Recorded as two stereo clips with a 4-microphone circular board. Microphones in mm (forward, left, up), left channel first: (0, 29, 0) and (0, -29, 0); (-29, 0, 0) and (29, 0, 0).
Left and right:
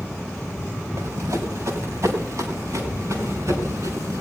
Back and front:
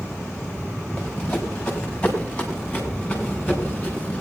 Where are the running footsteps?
105° right, 3.5 m; by 4.2 s 110° right, 5.5 m.